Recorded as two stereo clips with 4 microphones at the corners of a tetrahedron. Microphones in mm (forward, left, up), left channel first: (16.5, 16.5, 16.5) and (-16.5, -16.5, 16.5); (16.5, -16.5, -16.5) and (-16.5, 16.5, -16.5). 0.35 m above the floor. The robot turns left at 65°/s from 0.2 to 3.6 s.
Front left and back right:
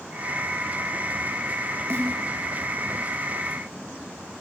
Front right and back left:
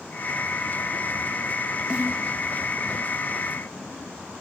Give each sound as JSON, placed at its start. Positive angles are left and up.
{"t": 1.9, "sound": "a snare drum", "azimuth_deg": -155, "distance_m": 4.0}